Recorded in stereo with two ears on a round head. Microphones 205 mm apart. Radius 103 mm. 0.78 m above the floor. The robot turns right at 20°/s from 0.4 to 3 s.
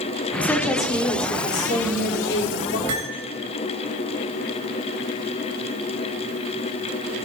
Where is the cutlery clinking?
60° right (ahead or behind), 2.5 m.